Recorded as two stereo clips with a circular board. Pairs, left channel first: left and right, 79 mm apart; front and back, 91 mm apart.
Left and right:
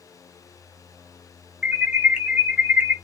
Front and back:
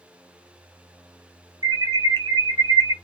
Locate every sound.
1.6 s an alarm: 160° right, 1.3 m